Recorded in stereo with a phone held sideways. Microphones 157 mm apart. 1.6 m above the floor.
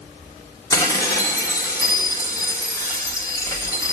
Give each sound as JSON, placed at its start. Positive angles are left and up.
{"t": 0.7, "sound": "dishes clattering", "side_deg": 20, "distance_m": 2.0}